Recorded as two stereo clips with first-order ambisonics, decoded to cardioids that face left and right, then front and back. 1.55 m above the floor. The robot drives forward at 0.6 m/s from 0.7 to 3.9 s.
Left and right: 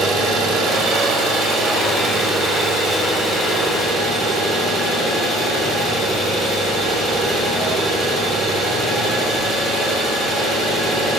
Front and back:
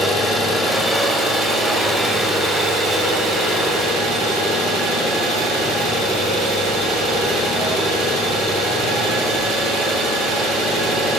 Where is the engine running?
85° right, 1.5 m; by 11.2 s 155° right, 2.5 m.